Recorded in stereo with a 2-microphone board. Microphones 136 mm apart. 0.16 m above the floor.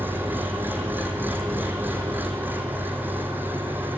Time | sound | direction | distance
0.0 | an engine running | 15° right (ahead or behind) | 1.9 m